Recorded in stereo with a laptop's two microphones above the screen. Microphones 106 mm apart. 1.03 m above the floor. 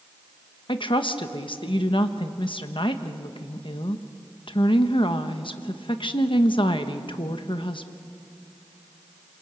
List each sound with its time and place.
0.7 s a woman speaking: 55° left (ahead or behind), 1.3 m